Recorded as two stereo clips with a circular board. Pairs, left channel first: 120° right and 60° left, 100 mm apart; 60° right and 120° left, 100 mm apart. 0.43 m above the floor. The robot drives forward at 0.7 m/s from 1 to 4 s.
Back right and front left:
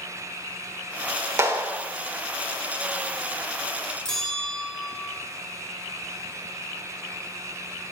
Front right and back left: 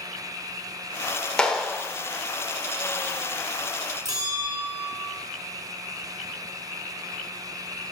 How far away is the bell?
About 1.9 m.